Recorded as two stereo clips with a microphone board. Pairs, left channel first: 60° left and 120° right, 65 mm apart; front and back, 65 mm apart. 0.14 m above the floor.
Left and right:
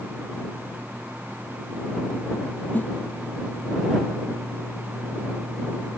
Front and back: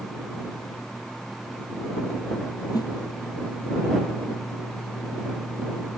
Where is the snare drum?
Straight ahead.